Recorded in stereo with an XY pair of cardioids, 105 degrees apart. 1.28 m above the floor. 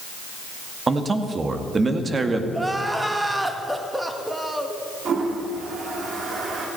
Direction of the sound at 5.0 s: 50° right.